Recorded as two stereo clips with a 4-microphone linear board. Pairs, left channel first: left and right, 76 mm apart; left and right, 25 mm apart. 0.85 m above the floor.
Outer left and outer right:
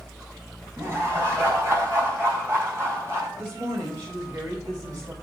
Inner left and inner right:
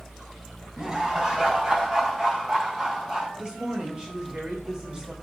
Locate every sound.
0.8 s laughter: 30° right (ahead or behind), 5 m
3.4 s a woman speaking: 30° right (ahead or behind), 4 m